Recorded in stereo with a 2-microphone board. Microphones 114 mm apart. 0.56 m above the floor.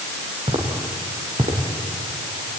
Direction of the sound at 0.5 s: 75° right (ahead or behind).